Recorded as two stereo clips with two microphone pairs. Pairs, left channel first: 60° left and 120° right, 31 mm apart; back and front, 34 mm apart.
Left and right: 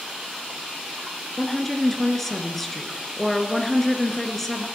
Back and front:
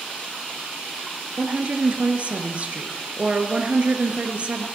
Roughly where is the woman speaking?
Ahead.